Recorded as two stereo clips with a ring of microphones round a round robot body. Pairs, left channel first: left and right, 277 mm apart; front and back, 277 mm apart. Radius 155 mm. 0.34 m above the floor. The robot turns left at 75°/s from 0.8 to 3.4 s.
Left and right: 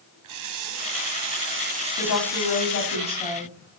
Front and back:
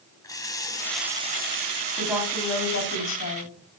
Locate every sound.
0.2 s a running tap: 75° right, 1.7 m; by 3.0 s 120° left, 1.7 m
2.0 s a woman speaking: 105° left, 2.5 m; by 3.5 s 5° right, 2.5 m